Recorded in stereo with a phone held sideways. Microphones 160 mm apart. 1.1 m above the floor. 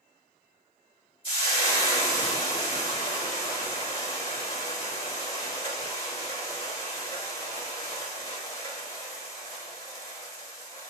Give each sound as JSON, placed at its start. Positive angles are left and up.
{"t": 1.2, "sound": "frying", "side_deg": 35, "distance_m": 1.8}